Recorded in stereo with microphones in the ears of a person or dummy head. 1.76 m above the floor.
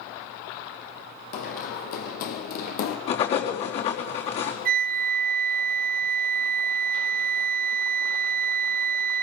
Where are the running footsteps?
55° left (ahead or behind), 4 m; by 3.0 s 60° left (ahead or behind), 3.5 m.